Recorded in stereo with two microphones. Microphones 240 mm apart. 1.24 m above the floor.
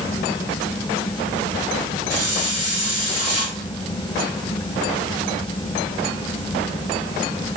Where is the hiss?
65° left (ahead or behind), 3 m.